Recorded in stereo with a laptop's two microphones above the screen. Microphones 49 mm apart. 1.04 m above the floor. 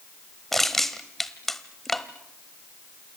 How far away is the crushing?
About 1.2 m.